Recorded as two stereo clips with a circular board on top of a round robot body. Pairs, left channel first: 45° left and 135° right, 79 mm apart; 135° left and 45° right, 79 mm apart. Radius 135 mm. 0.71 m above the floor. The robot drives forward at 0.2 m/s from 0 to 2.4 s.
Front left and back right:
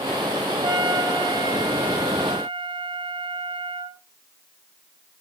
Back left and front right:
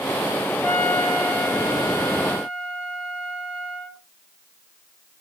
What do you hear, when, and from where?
0.6 s a trumpet: 155° right, 2.0 m; by 4.0 s 160° right, 2.5 m